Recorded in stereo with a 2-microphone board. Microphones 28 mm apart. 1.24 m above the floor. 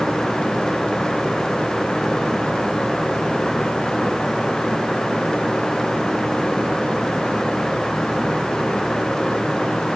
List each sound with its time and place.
Only background noise.